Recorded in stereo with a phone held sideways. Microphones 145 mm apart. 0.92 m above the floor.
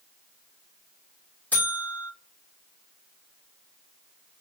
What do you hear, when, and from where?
1.5 s a buzzer: 10° left (ahead or behind), 3 m